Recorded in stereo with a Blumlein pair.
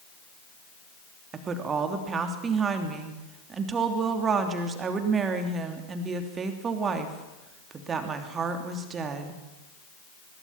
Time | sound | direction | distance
1.3 | a woman speaking | 25° right | 3 m